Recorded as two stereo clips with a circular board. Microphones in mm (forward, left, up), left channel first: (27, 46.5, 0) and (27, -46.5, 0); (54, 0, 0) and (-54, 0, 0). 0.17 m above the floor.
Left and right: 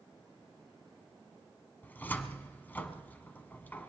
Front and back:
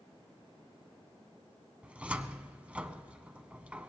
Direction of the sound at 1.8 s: 120° left.